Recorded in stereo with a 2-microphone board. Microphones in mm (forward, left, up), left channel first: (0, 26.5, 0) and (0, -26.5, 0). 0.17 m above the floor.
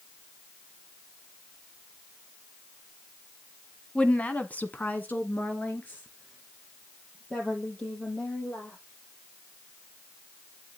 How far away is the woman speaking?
About 1.2 m.